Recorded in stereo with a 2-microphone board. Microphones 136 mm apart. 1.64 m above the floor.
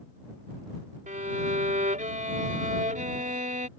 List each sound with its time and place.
1.1 s a violin: 70° right (ahead or behind)